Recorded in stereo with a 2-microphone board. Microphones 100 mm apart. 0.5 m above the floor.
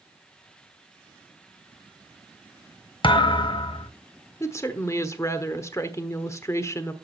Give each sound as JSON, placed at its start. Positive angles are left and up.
{"t": 3.0, "sound": "a thud", "side_deg": 60, "distance_m": 0.7}
{"t": 4.4, "sound": "a woman speaking", "side_deg": 30, "distance_m": 1.1}